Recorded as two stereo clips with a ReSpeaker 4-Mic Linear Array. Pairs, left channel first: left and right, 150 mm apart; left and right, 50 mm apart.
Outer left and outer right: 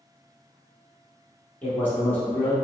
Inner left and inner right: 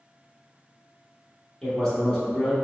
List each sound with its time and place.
1.6 s a man speaking: 15° left (ahead or behind), 1.0 m